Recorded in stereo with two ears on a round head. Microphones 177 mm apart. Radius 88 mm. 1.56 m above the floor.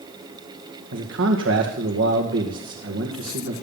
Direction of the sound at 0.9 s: 70° right (ahead or behind).